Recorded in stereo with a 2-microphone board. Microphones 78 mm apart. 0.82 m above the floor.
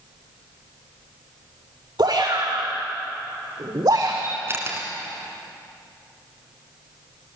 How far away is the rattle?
No rattle in this recording.